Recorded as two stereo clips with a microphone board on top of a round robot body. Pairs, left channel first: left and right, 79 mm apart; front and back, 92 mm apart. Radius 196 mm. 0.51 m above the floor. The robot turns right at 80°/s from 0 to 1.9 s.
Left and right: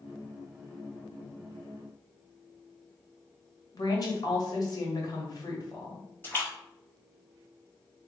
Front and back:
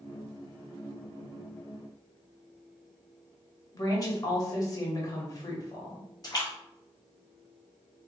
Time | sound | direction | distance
3.7 | a woman speaking | 50° left | 1.7 m
6.2 | a splash | 35° left | 1.8 m